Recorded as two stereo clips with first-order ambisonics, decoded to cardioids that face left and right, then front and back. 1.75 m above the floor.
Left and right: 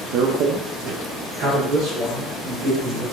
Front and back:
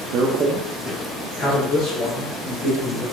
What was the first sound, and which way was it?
A man speaking, 135° right.